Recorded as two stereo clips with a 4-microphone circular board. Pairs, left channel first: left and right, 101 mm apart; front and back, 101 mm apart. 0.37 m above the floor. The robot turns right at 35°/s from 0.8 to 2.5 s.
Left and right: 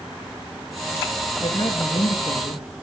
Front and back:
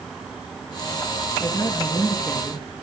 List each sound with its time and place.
1.4 s a woman speaking: 50° left, 7 m; by 2.8 s 85° left, 7 m